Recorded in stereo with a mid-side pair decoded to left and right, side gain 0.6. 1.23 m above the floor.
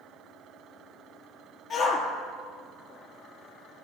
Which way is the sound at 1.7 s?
40° left.